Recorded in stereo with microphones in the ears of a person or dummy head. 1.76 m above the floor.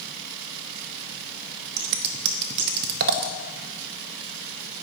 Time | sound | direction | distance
1.8 | scissors | 55° right (ahead or behind) | 0.6 m